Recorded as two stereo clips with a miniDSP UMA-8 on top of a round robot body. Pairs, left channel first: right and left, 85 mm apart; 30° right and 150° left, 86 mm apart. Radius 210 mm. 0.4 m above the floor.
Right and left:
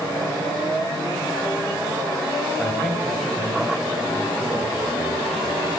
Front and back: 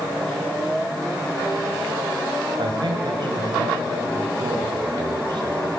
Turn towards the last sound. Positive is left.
turn(degrees=180)